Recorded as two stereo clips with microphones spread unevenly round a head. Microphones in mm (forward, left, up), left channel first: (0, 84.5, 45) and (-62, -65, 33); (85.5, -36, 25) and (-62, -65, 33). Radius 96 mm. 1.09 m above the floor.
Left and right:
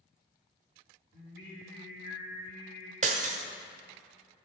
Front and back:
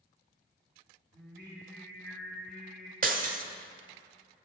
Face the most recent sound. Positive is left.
turn(degrees=-155)